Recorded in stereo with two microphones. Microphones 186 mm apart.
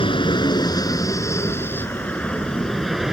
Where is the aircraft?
25° left (ahead or behind); by 3.1 s 5° right (ahead or behind).